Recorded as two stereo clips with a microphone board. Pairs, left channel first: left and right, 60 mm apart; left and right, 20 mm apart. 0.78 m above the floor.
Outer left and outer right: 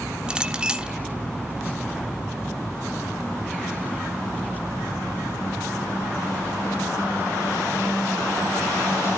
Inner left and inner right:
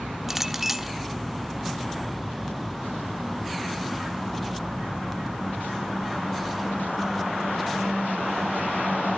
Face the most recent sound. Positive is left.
turn(degrees=-15)  # may be behind; listen again after turning